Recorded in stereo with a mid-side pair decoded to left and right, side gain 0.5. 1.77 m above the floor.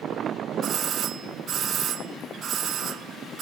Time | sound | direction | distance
0.6 | a doorbell | 55° right | 0.5 m